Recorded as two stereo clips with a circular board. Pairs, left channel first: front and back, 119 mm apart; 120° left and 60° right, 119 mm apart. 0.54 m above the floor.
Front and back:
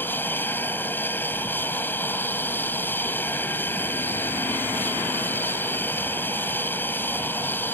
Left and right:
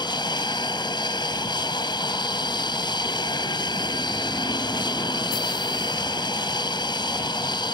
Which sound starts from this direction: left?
An aircraft, at 0.0 s.